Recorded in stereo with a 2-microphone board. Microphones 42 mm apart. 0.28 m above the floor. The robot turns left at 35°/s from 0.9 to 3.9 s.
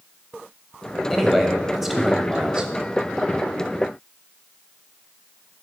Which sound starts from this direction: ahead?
A man speaking, at 1.1 s.